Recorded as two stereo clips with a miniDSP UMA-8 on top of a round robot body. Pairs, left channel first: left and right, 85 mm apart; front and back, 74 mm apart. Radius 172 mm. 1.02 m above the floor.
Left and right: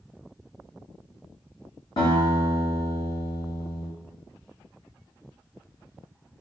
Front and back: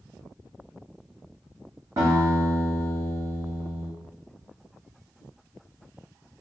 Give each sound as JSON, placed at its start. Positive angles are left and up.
{"t": 2.0, "sound": "a guitar", "azimuth_deg": 120, "distance_m": 1.0}